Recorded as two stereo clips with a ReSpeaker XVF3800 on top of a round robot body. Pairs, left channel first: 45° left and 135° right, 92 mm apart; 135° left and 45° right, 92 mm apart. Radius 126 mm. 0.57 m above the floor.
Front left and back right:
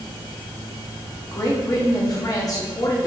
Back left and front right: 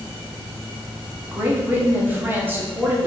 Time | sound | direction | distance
1.3 | a woman speaking | 15° left | 1.1 m